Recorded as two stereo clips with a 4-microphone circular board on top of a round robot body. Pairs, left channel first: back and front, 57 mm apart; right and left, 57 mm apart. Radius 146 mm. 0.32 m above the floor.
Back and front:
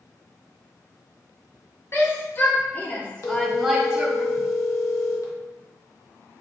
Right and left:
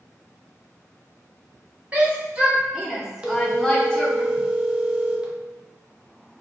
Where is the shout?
150° left, 1.4 m; by 4.2 s 45° right, 1.1 m.